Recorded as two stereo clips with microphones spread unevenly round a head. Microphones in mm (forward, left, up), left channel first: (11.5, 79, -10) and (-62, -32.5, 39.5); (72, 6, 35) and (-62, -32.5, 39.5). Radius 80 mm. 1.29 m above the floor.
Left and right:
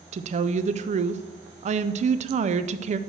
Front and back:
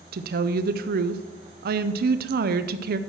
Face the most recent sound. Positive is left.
turn(degrees=-170)